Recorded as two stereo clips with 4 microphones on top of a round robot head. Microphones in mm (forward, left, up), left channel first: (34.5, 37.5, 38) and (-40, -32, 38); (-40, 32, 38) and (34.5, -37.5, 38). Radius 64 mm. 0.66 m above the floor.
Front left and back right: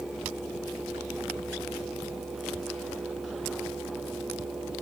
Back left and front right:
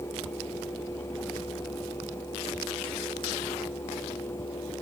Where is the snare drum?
No snare drum in this recording.